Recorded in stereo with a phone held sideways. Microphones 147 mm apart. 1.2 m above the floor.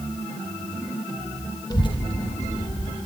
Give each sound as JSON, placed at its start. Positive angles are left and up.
{"t": 1.7, "sound": "a child speaking", "side_deg": 25, "distance_m": 0.9}